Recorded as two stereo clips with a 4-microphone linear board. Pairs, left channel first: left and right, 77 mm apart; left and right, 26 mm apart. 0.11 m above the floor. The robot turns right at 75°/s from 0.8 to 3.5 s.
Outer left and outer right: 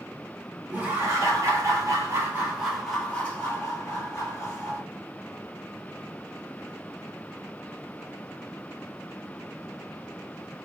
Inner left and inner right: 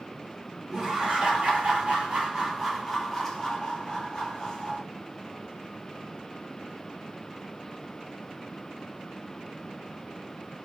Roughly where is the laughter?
Behind right.